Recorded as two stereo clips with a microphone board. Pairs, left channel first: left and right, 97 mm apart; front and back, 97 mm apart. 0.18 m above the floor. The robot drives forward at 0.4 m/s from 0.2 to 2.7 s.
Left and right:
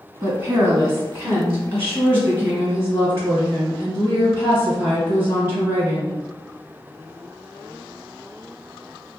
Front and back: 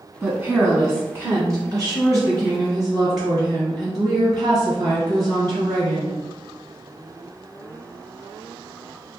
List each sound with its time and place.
0.2 s a woman speaking: 110° right, 1.3 m; by 6.2 s 160° right, 1.7 m